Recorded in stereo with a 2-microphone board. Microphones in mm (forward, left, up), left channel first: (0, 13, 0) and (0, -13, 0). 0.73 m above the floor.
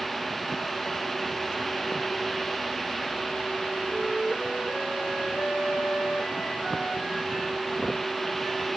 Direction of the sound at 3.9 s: 5° right (ahead or behind).